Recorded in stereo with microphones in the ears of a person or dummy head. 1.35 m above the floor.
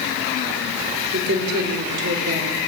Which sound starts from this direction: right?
A woman speaking, at 1.1 s.